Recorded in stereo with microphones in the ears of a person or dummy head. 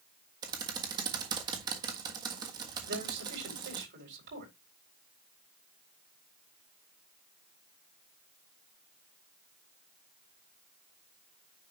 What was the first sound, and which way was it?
Typing on a keyboard, 25° right (ahead or behind).